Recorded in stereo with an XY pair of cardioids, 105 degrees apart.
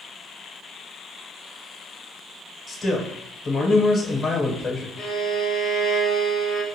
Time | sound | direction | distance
2.7 | a man speaking | 45° left | 1.1 m
5.0 | a violin | 65° left | 0.7 m